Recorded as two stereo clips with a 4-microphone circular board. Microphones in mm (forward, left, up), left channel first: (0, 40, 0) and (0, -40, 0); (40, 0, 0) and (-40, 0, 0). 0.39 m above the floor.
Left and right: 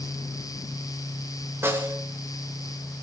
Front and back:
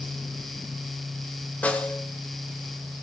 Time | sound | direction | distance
1.6 | a snare drum | 60° right | 1.7 m